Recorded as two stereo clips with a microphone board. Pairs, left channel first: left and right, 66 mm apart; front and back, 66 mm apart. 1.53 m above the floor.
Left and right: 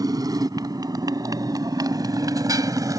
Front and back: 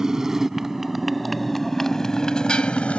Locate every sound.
0.0 s a motorcycle: 100° right; by 3.0 s 70° right